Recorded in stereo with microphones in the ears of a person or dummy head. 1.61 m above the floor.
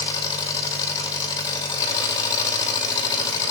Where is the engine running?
25° left (ahead or behind), 2 m.